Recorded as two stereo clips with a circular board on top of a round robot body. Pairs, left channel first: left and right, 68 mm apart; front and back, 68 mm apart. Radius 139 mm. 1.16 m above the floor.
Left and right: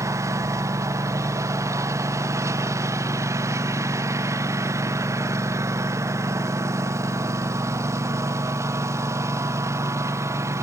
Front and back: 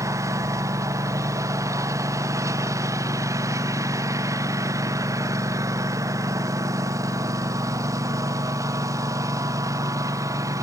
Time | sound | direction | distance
0.0 | a lawn mower | 135° right | ?